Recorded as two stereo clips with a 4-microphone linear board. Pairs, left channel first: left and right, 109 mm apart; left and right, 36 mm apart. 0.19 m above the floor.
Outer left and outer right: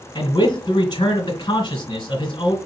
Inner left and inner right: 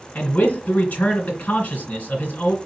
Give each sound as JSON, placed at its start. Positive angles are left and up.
{"t": 0.1, "sound": "a man speaking", "side_deg": 45, "distance_m": 2.0}